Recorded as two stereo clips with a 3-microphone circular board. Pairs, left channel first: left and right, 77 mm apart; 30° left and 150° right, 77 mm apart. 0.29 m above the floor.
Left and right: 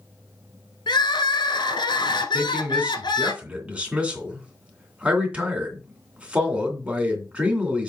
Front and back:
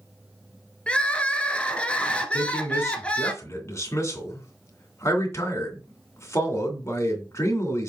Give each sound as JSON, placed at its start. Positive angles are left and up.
{"t": 0.9, "sound": "crying", "azimuth_deg": 105, "distance_m": 1.0}
{"t": 2.3, "sound": "a man speaking", "azimuth_deg": -20, "distance_m": 2.5}